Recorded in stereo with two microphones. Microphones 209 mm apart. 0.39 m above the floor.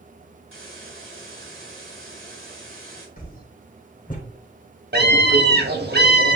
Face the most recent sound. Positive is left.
turn(degrees=-50)  # may be behind; listen again after turning